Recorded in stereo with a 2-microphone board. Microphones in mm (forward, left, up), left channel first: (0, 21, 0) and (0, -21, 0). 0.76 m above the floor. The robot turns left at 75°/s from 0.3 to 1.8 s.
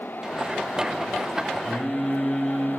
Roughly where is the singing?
Centre.